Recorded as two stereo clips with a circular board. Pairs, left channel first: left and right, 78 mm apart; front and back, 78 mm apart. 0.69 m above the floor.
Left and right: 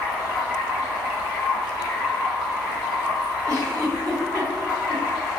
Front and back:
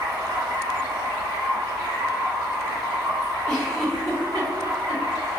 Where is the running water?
175° right, 1.2 m.